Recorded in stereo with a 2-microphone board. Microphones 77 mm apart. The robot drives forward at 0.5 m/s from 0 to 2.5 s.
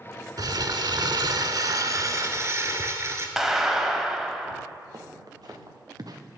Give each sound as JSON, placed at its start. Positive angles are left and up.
{"t": 0.4, "sound": "crumpling", "side_deg": -65, "distance_m": 0.7}
{"t": 3.4, "sound": "a clap", "side_deg": -5, "distance_m": 0.9}
{"t": 4.9, "sound": "footsteps", "side_deg": -60, "distance_m": 2.0}